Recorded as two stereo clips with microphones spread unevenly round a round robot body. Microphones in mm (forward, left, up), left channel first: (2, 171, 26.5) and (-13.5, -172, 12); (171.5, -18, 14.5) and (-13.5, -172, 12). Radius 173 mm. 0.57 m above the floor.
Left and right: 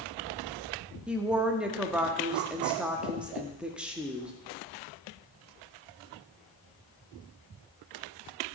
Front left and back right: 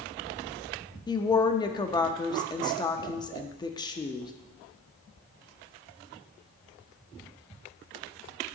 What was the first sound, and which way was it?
A woman speaking, 15° right.